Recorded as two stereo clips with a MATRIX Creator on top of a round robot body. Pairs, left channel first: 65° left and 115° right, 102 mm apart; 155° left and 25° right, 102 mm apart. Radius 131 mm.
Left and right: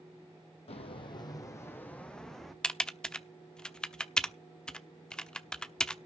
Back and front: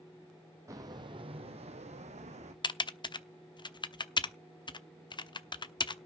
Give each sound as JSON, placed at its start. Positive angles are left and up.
{"t": 0.7, "sound": "footsteps", "azimuth_deg": 40, "distance_m": 1.4}
{"t": 2.6, "sound": "typing on a keyboard", "azimuth_deg": 145, "distance_m": 1.0}